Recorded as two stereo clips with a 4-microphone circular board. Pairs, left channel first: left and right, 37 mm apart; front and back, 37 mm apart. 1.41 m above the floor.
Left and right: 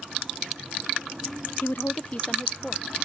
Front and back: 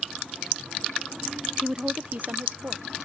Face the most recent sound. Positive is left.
turn(degrees=165)